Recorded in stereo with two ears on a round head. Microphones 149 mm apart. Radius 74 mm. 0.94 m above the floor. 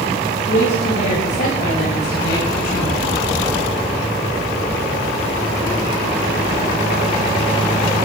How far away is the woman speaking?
About 6 m.